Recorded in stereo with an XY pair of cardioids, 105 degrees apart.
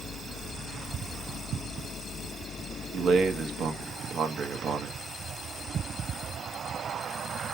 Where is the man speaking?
55° right, 1.3 m.